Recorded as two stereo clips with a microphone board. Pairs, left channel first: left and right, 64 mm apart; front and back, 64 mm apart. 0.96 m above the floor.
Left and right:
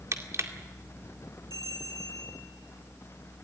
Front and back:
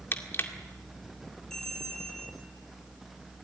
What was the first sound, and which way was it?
Crushing, 50° right.